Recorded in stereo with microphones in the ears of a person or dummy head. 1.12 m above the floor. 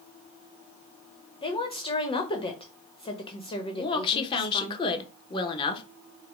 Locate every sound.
1.4 s a woman speaking: 30° left (ahead or behind), 1.0 m
3.7 s a woman speaking: 30° left (ahead or behind), 0.9 m